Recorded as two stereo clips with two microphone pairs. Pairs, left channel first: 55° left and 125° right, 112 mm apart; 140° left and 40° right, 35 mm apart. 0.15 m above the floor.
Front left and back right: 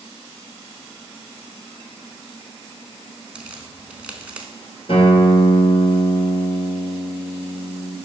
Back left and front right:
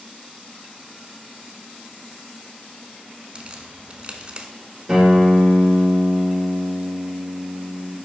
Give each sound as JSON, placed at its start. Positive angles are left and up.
{"t": 3.4, "sound": "a crack", "azimuth_deg": -55, "distance_m": 0.8}
{"t": 4.9, "sound": "a guitar", "azimuth_deg": 30, "distance_m": 2.0}